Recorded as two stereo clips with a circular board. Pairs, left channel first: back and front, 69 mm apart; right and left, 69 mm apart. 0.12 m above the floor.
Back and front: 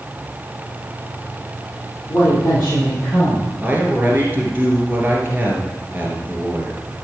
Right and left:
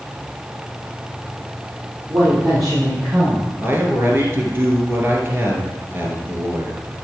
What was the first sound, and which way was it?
A woman speaking, 120° left.